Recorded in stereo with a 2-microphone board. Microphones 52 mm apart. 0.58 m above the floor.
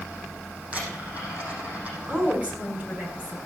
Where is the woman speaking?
25° right (ahead or behind), 5 m.